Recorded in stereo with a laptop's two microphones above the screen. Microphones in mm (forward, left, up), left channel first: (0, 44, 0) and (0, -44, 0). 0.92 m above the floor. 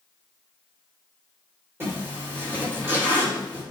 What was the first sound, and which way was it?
A zipper, 25° right (ahead or behind).